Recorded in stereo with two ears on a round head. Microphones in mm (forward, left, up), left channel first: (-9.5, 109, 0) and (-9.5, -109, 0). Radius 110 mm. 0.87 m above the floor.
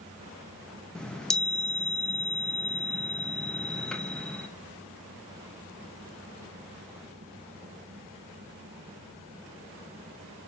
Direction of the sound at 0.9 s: 5° left (ahead or behind).